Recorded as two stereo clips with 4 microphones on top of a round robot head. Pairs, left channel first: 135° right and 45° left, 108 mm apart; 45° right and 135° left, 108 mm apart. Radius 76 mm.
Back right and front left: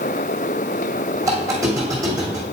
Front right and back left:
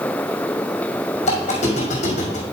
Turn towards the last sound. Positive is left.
turn(degrees=-20)